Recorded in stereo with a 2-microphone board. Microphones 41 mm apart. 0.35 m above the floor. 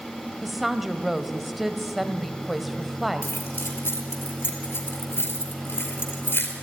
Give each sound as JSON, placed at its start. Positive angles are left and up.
{"t": 0.4, "sound": "a woman speaking", "side_deg": -5, "distance_m": 1.6}
{"t": 3.2, "sound": "keys jangling", "side_deg": 70, "distance_m": 4.5}